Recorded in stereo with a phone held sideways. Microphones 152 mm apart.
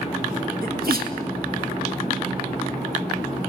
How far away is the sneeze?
About 2.5 m.